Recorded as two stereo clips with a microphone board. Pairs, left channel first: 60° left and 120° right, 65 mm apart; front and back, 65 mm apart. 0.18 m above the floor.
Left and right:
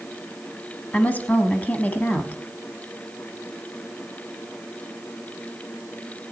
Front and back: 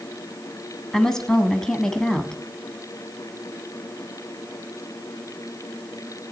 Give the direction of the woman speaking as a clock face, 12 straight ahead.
10 o'clock.